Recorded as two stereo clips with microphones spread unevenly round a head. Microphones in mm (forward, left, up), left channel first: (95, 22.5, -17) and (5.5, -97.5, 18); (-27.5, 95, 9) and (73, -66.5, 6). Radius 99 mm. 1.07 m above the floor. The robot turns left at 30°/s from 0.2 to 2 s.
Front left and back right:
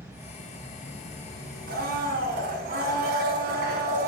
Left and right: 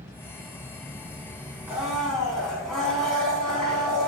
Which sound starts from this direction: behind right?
A blender, at 1.7 s.